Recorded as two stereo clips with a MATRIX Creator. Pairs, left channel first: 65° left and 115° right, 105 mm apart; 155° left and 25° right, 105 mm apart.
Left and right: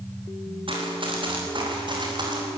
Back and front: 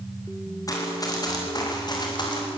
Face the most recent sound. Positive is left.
turn(degrees=-160)